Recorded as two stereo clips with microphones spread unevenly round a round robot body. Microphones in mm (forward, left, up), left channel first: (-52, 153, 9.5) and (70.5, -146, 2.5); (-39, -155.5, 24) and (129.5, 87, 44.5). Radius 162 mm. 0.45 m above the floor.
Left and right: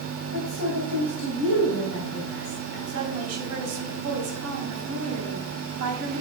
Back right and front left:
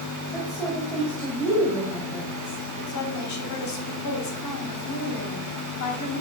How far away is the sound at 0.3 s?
About 2.5 m.